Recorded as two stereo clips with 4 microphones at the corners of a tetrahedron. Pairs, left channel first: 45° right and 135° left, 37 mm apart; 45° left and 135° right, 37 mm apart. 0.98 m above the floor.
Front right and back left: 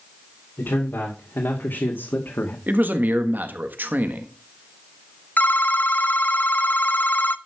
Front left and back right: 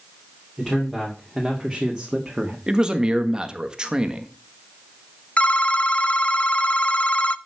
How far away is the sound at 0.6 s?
About 2.5 m.